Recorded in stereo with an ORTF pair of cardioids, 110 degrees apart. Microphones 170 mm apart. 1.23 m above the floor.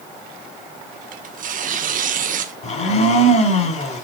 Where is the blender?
40° left, 4.5 m.